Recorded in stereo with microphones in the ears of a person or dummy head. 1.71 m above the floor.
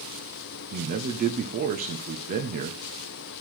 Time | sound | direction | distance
0.7 | a man speaking | 45° right (ahead or behind) | 1.3 m